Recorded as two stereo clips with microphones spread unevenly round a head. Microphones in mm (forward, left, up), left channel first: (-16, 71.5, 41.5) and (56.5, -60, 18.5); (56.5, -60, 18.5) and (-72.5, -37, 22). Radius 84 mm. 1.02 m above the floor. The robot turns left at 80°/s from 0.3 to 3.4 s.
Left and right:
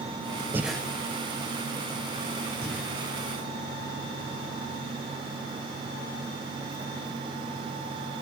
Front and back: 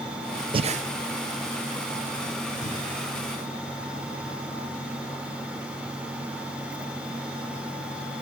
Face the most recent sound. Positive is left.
turn(degrees=-20)